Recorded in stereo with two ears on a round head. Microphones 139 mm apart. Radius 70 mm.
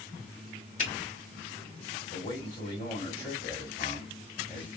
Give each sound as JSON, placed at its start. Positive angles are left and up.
{"t": 0.8, "sound": "a finger snap", "side_deg": 45, "distance_m": 1.5}
{"t": 2.1, "sound": "a man speaking", "side_deg": 30, "distance_m": 1.7}